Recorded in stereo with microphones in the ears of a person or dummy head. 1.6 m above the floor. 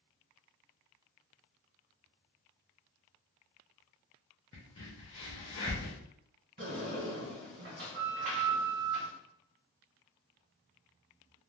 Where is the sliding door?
40° right (ahead or behind), 1.7 m.